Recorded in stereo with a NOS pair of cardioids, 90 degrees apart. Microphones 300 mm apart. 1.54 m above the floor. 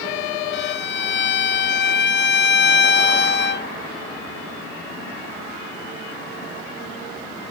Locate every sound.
0.5 s a violin: 40° left